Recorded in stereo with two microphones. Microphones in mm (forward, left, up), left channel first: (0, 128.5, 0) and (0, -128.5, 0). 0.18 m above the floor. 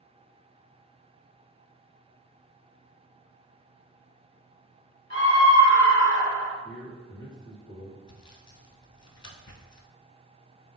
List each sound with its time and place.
5.1 s a scream: 40° left (ahead or behind), 1.3 m; by 6.5 s 50° left (ahead or behind), 1.7 m
6.6 s a man speaking: 15° right (ahead or behind), 1.9 m
8.1 s sawing: 75° left (ahead or behind), 0.6 m